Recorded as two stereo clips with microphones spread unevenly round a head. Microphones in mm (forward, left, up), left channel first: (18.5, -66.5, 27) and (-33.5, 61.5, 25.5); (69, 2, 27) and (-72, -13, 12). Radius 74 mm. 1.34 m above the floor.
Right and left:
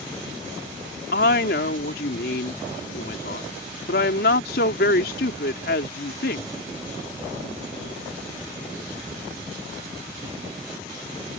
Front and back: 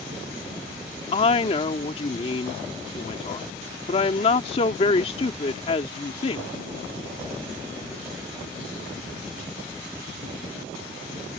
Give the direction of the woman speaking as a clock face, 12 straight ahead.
2 o'clock.